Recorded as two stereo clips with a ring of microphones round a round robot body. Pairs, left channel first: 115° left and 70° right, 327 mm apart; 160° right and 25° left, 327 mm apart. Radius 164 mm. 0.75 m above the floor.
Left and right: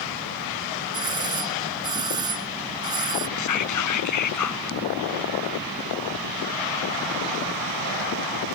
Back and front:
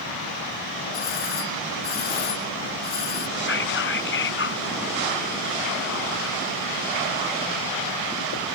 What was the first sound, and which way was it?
A doorbell, 145° right.